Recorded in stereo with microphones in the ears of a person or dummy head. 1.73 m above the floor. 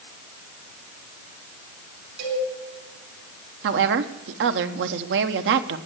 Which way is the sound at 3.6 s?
60° right (ahead or behind).